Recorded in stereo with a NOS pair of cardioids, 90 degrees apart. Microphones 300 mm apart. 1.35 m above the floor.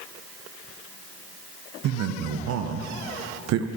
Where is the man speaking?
60° right, 0.5 m.